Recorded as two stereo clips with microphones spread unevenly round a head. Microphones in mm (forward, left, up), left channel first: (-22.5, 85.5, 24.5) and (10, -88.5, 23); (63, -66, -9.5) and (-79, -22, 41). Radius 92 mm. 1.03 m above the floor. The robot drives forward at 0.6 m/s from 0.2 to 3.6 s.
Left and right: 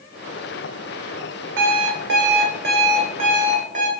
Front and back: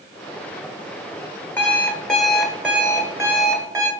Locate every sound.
1.6 s an alarm clock: 95° right, 1.8 m; by 3.9 s 130° right, 2.5 m